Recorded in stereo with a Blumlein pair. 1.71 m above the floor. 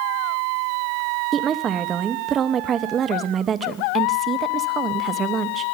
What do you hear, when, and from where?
1.3 s a woman speaking: 25° right, 0.6 m